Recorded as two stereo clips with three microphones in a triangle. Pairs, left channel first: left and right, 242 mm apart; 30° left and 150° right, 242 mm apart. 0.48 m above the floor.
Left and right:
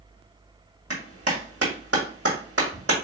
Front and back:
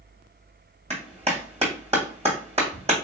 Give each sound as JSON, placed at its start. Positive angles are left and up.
{"t": 0.9, "sound": "a clap", "azimuth_deg": -90, "distance_m": 2.0}